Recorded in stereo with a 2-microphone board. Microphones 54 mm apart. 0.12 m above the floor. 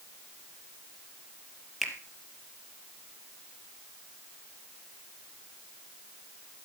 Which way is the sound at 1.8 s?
Centre (ahead or behind).